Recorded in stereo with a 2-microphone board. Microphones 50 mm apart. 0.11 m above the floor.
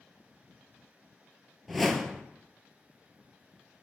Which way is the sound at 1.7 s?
Centre (ahead or behind).